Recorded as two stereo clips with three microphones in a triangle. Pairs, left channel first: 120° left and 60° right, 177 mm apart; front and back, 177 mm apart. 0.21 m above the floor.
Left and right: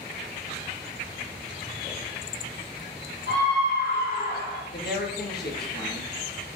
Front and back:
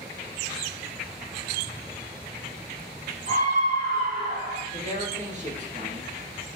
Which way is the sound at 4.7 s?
135° left.